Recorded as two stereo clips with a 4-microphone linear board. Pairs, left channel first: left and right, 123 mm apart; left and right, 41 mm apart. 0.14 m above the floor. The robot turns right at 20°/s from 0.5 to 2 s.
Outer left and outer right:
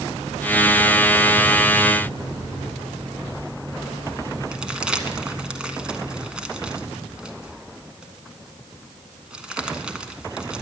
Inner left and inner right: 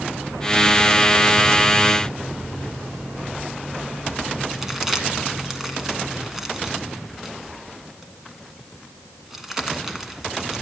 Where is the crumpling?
10° right (ahead or behind), 1.4 m.